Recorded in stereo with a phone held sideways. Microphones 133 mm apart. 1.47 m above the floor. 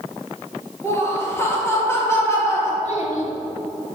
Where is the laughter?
20° left (ahead or behind), 2 m.